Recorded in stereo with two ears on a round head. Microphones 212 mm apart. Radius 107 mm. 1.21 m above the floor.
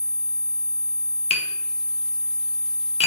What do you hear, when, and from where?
1.3 s tapping: 25° left (ahead or behind), 0.5 m